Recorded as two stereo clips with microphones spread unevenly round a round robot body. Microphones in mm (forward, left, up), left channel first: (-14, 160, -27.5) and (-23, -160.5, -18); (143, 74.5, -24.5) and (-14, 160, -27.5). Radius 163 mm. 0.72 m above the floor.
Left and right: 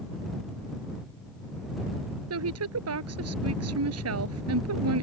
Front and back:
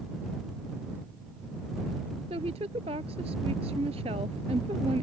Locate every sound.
2.3 s a woman speaking: 135° right